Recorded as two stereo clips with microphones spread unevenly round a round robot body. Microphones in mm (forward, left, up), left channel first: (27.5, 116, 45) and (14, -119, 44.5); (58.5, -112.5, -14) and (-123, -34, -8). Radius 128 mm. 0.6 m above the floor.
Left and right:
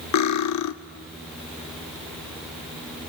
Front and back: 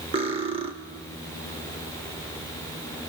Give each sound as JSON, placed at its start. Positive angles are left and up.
{"t": 0.1, "sound": "cutlery clinking", "azimuth_deg": 85, "distance_m": 0.9}